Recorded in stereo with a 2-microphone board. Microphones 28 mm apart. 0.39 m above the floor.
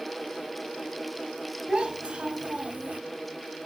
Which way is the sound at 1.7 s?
35° right (ahead or behind).